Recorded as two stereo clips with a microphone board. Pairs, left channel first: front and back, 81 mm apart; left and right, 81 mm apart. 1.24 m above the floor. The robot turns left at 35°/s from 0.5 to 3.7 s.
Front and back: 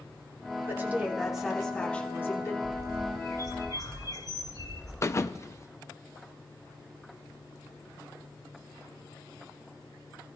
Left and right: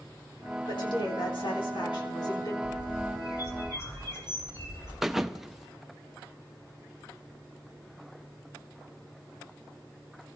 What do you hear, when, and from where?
0.7 s a woman speaking: 120° left, 3 m; by 2.5 s 55° left, 3 m
2.6 s a bird: 75° left, 3.5 m; by 4.9 s 40° left, 3.5 m
5.0 s a thud: 5° right, 0.6 m